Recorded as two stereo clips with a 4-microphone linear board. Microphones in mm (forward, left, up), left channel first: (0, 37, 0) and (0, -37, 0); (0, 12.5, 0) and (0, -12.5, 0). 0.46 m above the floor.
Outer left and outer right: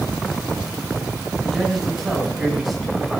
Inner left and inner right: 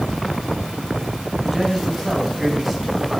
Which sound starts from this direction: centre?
A man speaking, at 1.4 s.